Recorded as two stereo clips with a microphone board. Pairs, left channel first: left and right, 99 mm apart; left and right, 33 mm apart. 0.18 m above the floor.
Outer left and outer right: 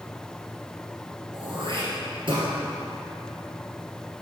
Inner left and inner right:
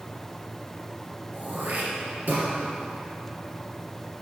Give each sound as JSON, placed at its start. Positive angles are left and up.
{"t": 1.3, "sound": "throat clearing", "side_deg": -60, "distance_m": 3.0}